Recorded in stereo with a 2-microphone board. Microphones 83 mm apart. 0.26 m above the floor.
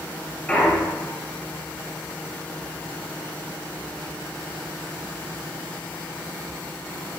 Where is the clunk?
15° left (ahead or behind), 1.8 m.